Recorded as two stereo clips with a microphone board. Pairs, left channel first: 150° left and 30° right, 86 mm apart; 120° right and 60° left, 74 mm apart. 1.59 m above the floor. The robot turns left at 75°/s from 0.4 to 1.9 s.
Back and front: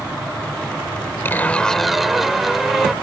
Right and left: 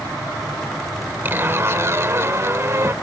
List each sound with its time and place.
1.2 s a zipper: 100° left; by 2.9 s 55° left